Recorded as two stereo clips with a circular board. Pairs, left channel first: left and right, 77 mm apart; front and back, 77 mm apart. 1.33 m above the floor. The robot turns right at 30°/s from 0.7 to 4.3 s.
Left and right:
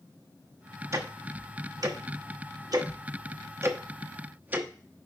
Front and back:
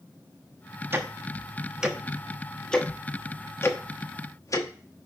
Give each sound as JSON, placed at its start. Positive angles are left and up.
{"t": 0.9, "sound": "ticking", "azimuth_deg": -130, "distance_m": 1.0}